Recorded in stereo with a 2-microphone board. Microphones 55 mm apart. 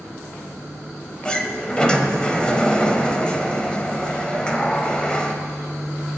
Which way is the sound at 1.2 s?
15° left (ahead or behind).